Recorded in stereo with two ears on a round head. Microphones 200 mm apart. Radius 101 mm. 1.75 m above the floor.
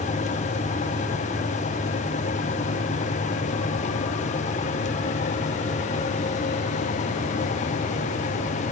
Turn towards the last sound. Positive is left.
No sound to turn to.